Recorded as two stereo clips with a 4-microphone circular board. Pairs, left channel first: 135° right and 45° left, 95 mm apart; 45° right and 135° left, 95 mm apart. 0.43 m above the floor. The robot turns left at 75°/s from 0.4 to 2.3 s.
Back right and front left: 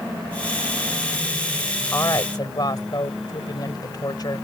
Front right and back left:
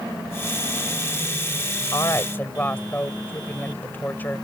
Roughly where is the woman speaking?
Right.